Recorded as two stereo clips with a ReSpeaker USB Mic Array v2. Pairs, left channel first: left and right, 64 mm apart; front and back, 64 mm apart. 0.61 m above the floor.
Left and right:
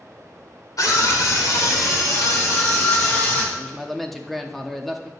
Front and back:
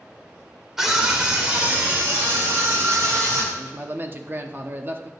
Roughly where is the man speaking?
Behind.